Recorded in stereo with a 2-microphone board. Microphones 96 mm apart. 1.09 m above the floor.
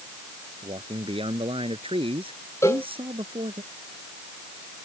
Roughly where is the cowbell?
Left.